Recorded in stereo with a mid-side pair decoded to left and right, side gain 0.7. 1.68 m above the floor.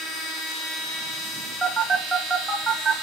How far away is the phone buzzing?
About 1.4 m.